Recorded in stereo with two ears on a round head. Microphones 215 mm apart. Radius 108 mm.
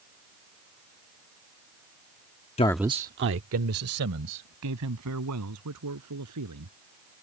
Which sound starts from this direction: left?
A man speaking, at 2.6 s.